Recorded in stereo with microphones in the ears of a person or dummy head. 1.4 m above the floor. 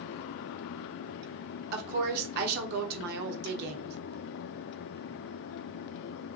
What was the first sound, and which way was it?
A woman speaking, 55° right (ahead or behind).